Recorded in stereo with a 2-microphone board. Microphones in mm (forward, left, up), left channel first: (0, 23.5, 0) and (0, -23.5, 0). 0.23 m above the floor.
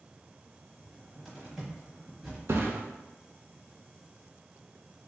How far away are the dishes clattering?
No dishes clattering in this recording.